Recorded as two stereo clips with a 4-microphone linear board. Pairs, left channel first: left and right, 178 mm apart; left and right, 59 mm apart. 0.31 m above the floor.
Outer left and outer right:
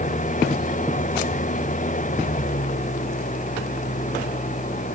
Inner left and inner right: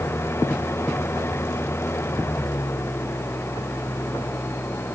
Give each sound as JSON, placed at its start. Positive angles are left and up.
{"t": 0.0, "sound": "an engine running", "side_deg": 45}